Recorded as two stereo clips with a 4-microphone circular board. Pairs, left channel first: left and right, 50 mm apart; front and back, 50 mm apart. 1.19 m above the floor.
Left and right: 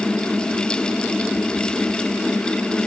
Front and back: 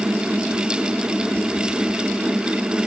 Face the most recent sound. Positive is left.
No sound to turn to.